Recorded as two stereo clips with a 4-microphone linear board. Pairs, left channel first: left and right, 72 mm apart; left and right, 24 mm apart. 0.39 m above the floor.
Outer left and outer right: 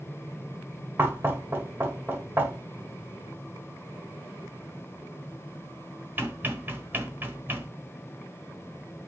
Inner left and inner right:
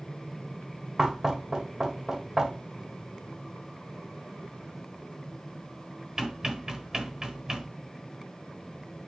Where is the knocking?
30° right (ahead or behind), 1.2 m.